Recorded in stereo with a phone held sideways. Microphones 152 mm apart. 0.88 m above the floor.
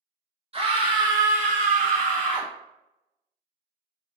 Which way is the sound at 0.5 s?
40° right (ahead or behind).